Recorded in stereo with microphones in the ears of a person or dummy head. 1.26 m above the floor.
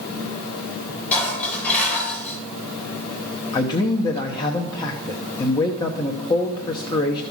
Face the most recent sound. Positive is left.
turn(degrees=20)  # may be behind; listen again after turning